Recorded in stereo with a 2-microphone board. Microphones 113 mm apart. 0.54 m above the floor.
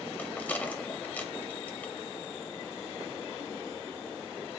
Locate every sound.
0.2 s a rattle: 15° left (ahead or behind), 0.6 m